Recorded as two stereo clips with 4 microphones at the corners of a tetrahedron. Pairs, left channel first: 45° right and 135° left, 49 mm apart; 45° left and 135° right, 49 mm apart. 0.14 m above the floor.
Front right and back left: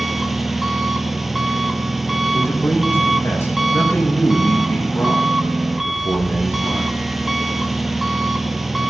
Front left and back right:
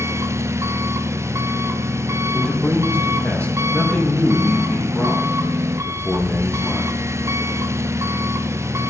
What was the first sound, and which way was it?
An engine running, 140° right.